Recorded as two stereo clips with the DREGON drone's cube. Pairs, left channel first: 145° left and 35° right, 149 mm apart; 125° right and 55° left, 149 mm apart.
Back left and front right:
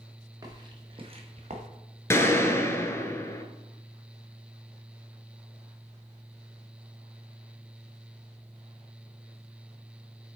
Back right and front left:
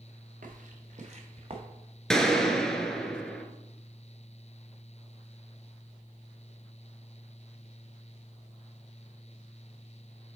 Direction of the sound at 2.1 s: 160° left.